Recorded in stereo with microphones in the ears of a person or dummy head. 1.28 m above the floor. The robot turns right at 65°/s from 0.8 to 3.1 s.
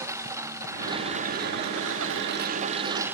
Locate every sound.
0.0 s a lawn mower: 165° right; by 3.1 s 15° right